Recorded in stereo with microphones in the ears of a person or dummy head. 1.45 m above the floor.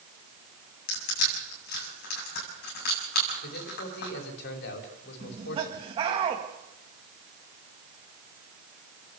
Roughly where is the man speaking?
Left.